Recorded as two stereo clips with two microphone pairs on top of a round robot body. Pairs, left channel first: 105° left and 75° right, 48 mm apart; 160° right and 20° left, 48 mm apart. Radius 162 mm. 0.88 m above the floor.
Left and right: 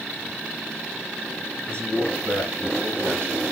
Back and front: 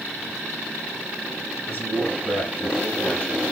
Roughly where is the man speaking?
Right.